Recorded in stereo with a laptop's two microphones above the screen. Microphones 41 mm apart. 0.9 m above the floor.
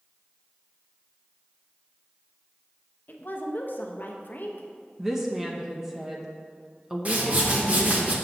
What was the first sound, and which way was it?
A woman speaking, 50° left (ahead or behind).